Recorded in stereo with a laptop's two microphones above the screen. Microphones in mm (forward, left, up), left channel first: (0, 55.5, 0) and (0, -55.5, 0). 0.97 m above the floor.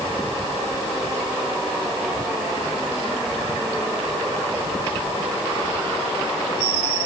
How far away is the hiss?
No hiss in this recording.